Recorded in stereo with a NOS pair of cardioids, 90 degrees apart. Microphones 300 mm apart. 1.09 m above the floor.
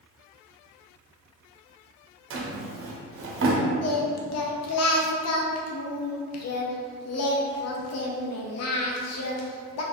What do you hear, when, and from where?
2.3 s a drawer: 45° right, 0.8 m
3.8 s singing: 55° left, 0.7 m